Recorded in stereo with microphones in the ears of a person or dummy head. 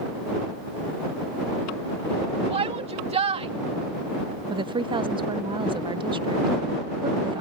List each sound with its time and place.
2.5 s a shout: 40° right (ahead or behind)
4.5 s a woman speaking: 25° right (ahead or behind)